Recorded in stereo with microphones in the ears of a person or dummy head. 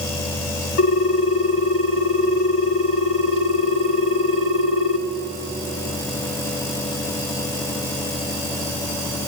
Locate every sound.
0.8 s a ringtone: 65° left (ahead or behind), 1.5 m